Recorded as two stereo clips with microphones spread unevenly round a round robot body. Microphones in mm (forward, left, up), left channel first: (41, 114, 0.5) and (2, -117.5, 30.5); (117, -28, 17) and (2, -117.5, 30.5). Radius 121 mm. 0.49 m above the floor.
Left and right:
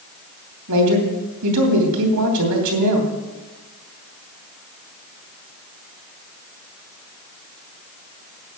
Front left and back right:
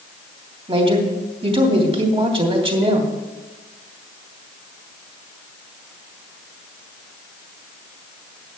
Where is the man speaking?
90° right, 3 m.